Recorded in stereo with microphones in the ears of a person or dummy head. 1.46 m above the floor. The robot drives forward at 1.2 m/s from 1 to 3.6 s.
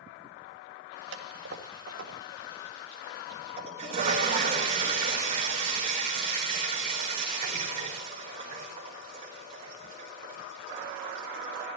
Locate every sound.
1.1 s a toilet flushing: 80° right, 3 m; by 11.7 s 40° right (ahead or behind), 4.5 m